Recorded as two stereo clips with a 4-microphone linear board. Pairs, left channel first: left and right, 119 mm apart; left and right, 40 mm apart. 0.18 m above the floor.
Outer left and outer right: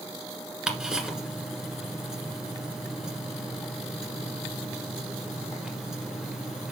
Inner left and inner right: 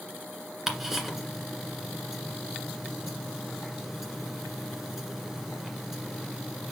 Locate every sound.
0.7 s ticking: 5° right (ahead or behind), 1.7 m